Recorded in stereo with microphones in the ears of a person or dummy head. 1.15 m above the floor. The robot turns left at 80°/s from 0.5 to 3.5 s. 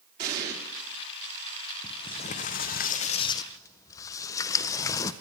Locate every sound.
0.2 s an explosion: 50° right (ahead or behind), 3 m; by 0.5 s 55° right (ahead or behind), 3 m
1.8 s a sliding door: 160° left, 0.5 m; by 5.1 s 30° left, 0.5 m